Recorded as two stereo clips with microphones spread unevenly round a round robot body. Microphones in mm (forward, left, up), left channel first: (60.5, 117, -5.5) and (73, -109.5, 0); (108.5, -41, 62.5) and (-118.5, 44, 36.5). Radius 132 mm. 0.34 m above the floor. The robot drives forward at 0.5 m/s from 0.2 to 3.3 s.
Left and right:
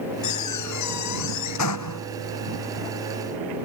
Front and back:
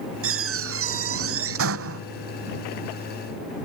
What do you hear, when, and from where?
0.2 s a door slam: 125° left